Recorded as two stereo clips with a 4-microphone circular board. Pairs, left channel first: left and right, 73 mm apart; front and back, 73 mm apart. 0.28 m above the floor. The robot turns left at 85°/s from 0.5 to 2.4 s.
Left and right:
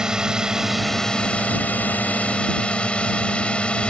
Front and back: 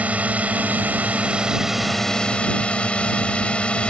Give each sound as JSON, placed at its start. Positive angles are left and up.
{"t": 0.0, "sound": "a drone", "azimuth_deg": -155}